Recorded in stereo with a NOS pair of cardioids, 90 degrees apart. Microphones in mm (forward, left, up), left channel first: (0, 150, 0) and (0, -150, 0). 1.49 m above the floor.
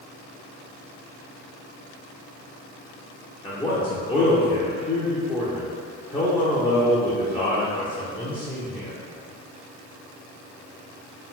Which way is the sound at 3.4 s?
15° left.